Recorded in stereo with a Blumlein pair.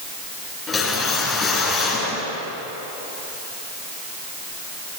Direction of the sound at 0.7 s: 15° left.